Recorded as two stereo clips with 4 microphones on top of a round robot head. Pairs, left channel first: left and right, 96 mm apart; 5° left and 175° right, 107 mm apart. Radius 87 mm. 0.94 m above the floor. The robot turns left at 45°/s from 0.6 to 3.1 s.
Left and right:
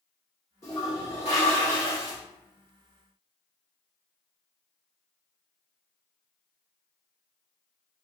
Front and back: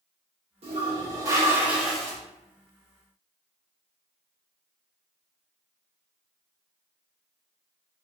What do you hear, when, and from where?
0.6 s a toilet flushing: 155° left, 0.8 m; by 2.2 s 85° left, 0.8 m